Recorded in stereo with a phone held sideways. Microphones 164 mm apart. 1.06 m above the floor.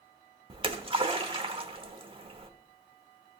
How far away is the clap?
No clap in this recording.